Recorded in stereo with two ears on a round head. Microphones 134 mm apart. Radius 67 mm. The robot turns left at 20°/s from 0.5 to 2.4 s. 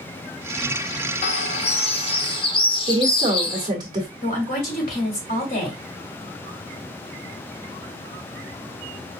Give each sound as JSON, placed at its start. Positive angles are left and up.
{"t": 1.2, "sound": "a bird", "side_deg": 45, "distance_m": 0.6}
{"t": 2.9, "sound": "a woman speaking", "side_deg": -30, "distance_m": 1.4}
{"t": 4.2, "sound": "a woman speaking", "side_deg": 60, "distance_m": 2.0}